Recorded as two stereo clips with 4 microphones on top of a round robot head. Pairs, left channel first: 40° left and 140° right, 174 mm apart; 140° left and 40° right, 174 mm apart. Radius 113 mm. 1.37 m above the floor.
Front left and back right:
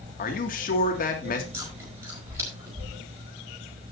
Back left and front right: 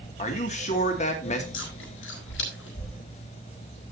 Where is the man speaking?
85° left, 2.5 m.